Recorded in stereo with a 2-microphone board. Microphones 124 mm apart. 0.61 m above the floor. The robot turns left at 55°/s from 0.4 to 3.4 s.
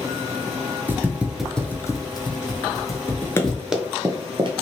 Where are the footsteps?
15° right (ahead or behind), 0.6 m; by 3.6 s 5° left (ahead or behind), 1.3 m.